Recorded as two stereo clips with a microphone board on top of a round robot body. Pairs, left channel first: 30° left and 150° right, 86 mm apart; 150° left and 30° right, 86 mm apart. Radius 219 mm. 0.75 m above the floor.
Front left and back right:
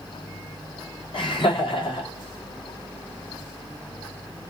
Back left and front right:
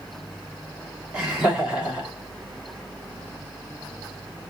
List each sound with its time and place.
1.1 s laughter: 50° left, 3 m